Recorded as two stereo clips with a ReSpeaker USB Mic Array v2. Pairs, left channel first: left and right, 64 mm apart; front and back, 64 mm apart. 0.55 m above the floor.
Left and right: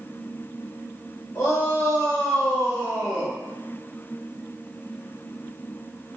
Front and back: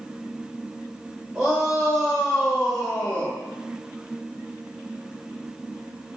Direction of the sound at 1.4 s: 120° left.